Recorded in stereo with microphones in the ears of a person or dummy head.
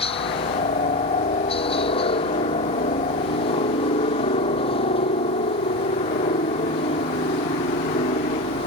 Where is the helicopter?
25° left (ahead or behind).